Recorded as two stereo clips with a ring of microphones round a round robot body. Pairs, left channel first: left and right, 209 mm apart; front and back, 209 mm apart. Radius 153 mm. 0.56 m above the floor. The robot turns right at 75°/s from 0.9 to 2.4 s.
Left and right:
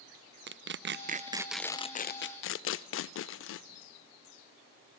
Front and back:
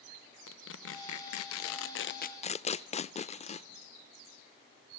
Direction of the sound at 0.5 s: 50° right.